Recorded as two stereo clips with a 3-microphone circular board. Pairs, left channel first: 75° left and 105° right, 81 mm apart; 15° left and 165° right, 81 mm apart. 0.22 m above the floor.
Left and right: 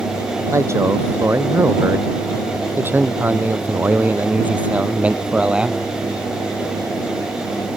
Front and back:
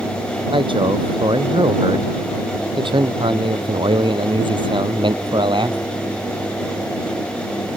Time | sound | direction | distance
0.5 | a man speaking | 160° right | ?